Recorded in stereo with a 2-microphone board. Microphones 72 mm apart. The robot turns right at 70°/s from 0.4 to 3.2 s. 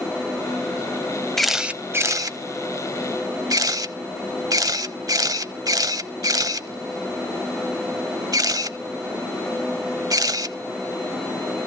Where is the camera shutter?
5° left (ahead or behind), 0.7 m; by 10.6 s 60° right (ahead or behind), 0.7 m.